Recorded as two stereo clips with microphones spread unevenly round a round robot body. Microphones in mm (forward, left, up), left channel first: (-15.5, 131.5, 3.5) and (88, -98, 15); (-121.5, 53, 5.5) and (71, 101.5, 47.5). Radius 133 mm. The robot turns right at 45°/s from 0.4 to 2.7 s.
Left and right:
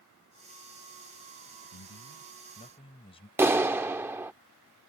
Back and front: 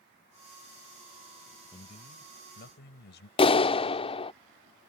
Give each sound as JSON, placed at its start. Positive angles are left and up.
{"t": 1.7, "sound": "a man speaking", "azimuth_deg": 135}
{"t": 3.4, "sound": "a clap", "azimuth_deg": -145}